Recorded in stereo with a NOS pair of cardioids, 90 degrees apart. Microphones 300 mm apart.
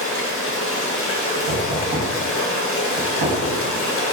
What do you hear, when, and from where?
0.0 s running water: 50° left, 0.8 m
1.5 s knocking: 25° right, 1.4 m